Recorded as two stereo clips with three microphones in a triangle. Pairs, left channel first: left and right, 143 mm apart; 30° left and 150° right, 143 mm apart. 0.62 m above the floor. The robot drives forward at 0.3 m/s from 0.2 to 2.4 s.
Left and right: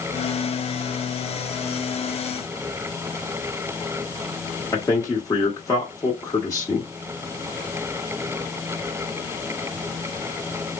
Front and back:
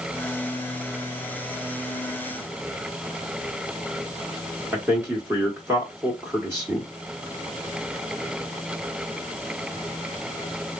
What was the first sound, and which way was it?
A man speaking, 145° left.